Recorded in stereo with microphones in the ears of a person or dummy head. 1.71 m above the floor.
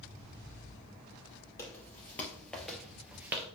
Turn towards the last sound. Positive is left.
turn(degrees=-10)  # may be behind; listen again after turning